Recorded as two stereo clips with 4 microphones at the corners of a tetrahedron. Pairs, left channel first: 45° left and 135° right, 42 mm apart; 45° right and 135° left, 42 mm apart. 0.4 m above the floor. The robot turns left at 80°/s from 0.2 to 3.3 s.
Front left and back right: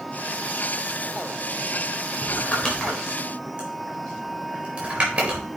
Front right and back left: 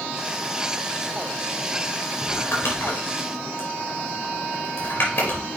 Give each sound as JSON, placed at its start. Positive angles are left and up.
{"t": 2.2, "sound": "crumpling", "azimuth_deg": 15, "distance_m": 4.0}